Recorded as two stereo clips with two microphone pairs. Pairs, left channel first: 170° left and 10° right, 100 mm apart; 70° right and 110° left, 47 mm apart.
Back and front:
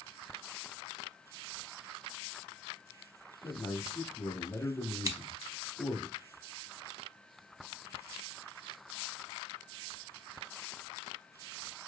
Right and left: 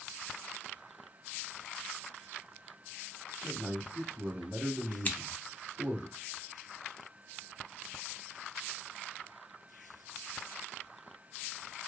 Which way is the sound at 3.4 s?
140° left.